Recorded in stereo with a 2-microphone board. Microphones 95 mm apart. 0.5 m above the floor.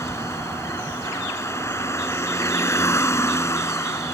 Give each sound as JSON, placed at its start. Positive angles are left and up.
{"t": 0.0, "sound": "a vehicle", "side_deg": 30}